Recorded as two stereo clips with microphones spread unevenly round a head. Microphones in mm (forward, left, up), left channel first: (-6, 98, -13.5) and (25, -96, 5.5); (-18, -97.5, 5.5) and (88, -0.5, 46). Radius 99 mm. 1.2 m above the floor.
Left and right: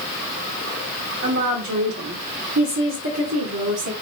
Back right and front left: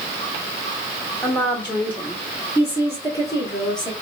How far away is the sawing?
I don't hear sawing.